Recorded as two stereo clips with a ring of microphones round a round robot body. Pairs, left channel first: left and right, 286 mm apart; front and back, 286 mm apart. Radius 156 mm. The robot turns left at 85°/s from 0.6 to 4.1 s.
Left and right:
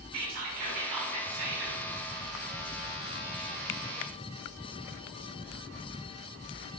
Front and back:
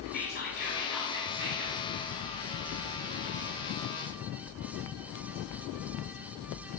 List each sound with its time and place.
0.1 s whispering: 60° right, 2.5 m; by 1.8 s 165° right, 2.5 m